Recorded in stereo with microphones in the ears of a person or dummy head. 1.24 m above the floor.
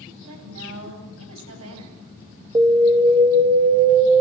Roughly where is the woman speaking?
Right.